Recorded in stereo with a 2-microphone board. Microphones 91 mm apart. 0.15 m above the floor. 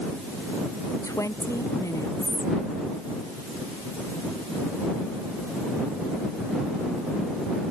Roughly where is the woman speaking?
Left.